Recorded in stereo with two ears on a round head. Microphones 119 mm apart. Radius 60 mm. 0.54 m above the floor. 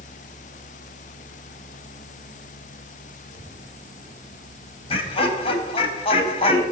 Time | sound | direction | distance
3.3 | a child speaking | 25° right (ahead or behind) | 6 m
4.9 | laughter | 45° left (ahead or behind) | 4 m